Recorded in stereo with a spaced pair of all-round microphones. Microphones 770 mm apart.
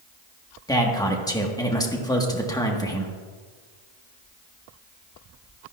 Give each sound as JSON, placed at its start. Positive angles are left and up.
{"t": 0.7, "sound": "a man speaking", "side_deg": 5, "distance_m": 1.3}